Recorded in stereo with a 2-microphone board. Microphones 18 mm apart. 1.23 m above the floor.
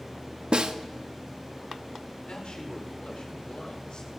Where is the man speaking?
65° left (ahead or behind), 4.5 m.